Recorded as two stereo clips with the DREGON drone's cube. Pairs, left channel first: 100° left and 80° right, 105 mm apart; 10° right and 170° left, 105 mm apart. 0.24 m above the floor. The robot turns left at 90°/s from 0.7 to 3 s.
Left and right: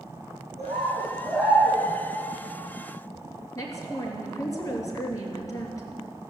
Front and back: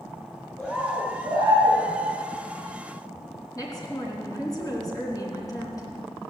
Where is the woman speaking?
45° left, 3 m.